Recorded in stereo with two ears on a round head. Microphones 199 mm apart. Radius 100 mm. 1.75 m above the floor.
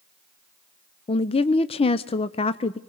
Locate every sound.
1.1 s a woman speaking: 25° left (ahead or behind), 0.5 m